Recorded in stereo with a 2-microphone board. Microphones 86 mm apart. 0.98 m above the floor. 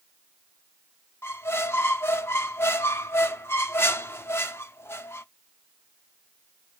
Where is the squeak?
30° left (ahead or behind), 0.6 m.